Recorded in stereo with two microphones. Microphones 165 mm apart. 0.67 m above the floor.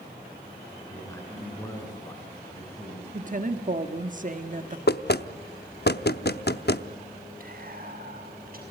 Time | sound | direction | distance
0.9 | a man speaking | 15° left (ahead or behind) | 7.5 m
3.1 | a woman speaking | 50° right (ahead or behind) | 1.4 m
4.9 | knocking | 70° left (ahead or behind) | 0.7 m
7.4 | whispering | 55° right (ahead or behind) | 6 m